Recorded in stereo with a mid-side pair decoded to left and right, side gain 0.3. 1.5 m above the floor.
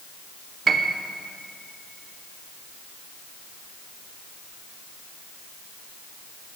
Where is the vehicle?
I don't hear a vehicle.